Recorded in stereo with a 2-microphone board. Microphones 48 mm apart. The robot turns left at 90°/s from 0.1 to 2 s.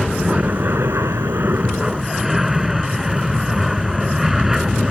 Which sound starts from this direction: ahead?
An aircraft, at 0.0 s.